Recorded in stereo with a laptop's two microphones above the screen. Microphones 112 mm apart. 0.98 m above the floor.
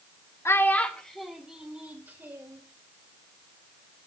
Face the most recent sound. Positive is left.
turn(degrees=-20)  # may be behind; listen again after turning